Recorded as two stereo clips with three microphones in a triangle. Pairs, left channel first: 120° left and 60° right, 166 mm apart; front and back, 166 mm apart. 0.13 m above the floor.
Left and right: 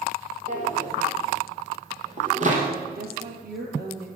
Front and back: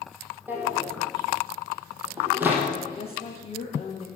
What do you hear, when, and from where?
0.5 s a drawer: 100° right, 3.5 m
3.0 s a woman speaking: 50° right, 3 m